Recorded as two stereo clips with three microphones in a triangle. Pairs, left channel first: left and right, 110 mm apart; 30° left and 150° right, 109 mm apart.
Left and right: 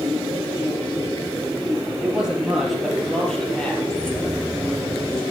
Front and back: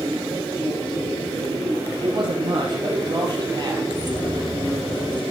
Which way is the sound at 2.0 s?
165° right.